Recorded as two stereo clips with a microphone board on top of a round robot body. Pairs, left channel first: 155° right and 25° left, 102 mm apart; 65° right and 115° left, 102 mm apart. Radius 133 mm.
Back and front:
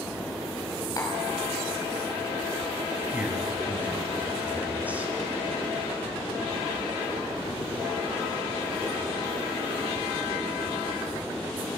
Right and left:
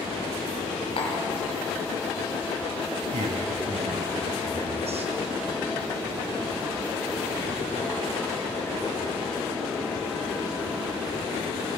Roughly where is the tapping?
Right.